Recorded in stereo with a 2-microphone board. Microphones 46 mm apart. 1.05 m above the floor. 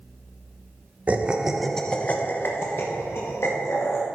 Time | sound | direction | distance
1.1 | laughter | 25° right (ahead or behind) | 1.0 m